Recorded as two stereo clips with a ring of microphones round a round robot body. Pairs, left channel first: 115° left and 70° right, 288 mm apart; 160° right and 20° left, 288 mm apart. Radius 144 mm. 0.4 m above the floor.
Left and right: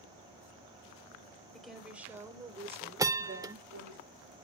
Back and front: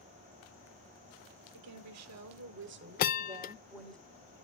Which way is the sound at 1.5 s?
25° left.